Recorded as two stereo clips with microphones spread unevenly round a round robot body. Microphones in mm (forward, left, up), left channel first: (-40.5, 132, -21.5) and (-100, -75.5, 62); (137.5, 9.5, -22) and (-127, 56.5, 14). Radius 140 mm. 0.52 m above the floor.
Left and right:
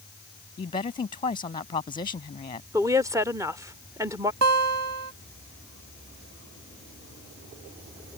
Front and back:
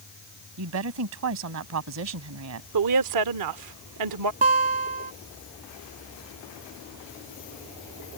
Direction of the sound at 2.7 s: 165° left.